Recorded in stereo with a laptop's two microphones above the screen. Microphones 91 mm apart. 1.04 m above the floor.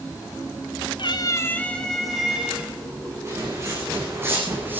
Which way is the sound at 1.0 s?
60° left (ahead or behind).